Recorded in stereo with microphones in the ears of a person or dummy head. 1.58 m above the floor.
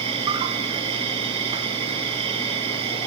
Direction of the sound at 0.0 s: 30° right (ahead or behind).